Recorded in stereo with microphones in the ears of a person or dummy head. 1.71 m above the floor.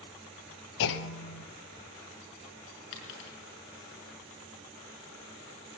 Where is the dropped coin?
60° left (ahead or behind), 5.5 m.